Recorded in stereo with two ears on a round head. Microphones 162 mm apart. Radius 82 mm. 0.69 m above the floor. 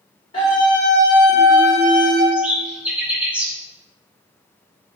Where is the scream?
30° left (ahead or behind), 2 m; by 2.2 s centre (ahead or behind), 2 m.